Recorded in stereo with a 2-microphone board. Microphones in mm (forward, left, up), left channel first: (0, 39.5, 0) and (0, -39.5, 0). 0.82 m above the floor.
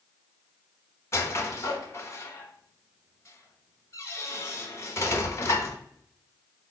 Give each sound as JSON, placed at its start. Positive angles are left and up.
{"t": 1.1, "sound": "a squeak", "side_deg": 35, "distance_m": 0.8}